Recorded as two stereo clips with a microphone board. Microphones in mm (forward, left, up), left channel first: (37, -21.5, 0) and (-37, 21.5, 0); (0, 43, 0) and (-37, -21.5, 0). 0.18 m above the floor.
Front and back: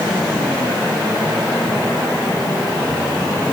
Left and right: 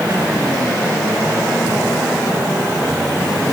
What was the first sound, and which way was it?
Only background noise.